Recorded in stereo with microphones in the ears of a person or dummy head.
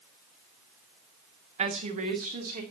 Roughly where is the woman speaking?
Right.